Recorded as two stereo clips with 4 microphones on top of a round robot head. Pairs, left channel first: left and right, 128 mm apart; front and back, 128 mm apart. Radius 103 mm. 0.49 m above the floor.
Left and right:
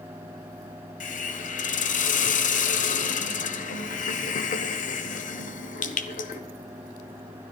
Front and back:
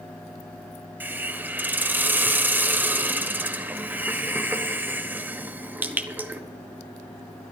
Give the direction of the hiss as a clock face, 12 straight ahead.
9 o'clock.